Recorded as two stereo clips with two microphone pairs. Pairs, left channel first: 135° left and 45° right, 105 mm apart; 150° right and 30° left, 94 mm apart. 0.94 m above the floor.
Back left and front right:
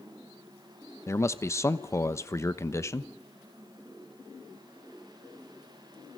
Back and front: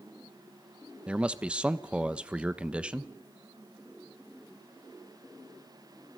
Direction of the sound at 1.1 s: 100° left.